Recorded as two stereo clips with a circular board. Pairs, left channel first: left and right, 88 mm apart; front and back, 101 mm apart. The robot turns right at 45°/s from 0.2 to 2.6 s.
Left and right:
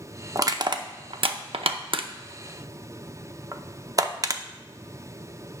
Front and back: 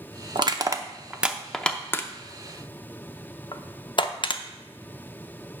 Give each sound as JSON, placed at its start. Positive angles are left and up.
{"t": 0.3, "sound": "crushing", "azimuth_deg": -140, "distance_m": 0.6}